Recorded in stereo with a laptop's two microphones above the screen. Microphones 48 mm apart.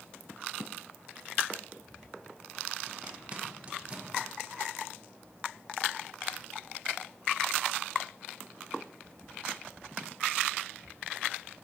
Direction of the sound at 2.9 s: 25° right (ahead or behind).